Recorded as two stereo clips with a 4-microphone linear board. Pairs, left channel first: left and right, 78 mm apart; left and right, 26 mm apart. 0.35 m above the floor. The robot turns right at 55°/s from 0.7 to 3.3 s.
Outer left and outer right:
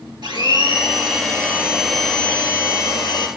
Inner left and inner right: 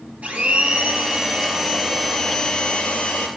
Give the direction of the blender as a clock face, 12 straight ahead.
2 o'clock.